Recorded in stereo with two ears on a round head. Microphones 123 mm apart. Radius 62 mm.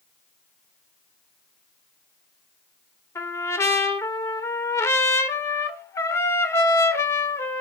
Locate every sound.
3.1 s a trumpet: 20° left (ahead or behind), 0.9 m